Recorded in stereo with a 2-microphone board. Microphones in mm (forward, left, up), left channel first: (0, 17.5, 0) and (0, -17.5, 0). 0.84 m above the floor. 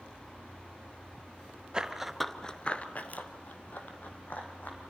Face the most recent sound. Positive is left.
turn(degrees=50)  # may be behind; listen again after turning